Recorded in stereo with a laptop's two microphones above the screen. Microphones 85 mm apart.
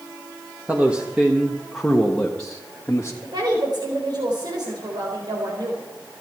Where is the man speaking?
15° right (ahead or behind), 1.7 m; by 3.1 s 25° left (ahead or behind), 1.9 m.